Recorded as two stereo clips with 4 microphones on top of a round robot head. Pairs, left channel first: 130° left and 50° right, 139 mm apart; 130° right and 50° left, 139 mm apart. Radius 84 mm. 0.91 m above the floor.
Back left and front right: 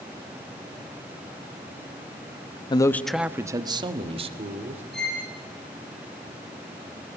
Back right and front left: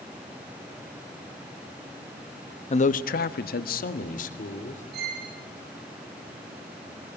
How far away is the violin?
About 9.5 m.